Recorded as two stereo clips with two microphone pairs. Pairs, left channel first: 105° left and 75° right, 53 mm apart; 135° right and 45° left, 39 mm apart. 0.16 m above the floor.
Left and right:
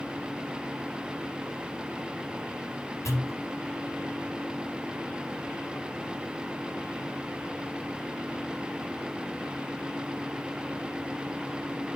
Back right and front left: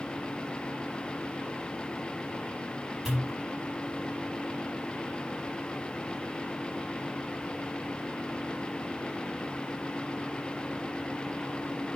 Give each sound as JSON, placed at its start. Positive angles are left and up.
{"t": 3.0, "sound": "a pop", "azimuth_deg": 120, "distance_m": 4.5}